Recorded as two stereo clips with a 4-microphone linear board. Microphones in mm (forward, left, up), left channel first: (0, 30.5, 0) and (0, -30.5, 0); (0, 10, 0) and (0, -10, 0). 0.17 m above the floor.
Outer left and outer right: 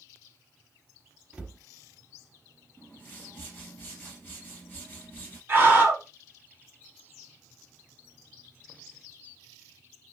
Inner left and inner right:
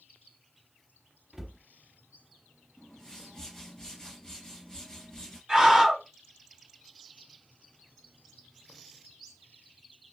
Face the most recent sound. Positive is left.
turn(degrees=-30)  # may be behind; listen again after turning